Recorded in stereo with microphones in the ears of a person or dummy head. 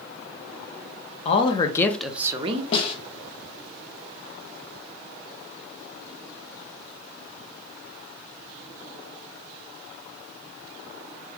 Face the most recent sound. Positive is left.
turn(degrees=35)  # may be behind; listen again after turning